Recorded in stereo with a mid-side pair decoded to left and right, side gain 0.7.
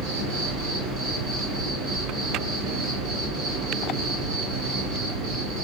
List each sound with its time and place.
0.0 s an insect: 65° right, 1.7 m